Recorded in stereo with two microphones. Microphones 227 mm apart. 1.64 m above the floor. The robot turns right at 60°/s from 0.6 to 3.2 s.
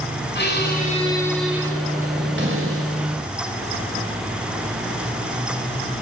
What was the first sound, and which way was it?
A squeak, 130° left.